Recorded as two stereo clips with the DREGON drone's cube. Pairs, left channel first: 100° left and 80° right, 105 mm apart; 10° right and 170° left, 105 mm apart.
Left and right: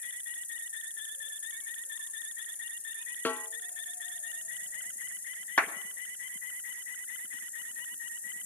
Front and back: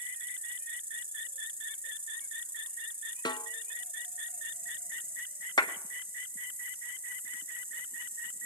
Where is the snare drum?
25° left, 0.5 m.